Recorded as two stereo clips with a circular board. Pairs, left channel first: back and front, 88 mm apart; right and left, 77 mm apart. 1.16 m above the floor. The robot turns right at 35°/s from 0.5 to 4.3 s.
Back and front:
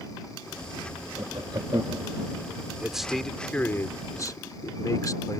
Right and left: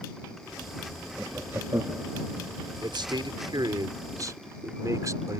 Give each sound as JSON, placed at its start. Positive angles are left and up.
{"t": 1.2, "sound": "laughter", "azimuth_deg": 20}
{"t": 2.8, "sound": "a man speaking", "azimuth_deg": 80}